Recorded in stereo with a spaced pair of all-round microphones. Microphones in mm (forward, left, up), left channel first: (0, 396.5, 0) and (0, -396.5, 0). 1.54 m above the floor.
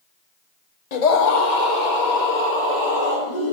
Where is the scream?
55° left (ahead or behind), 0.9 m; by 3.5 s 65° left (ahead or behind), 4 m.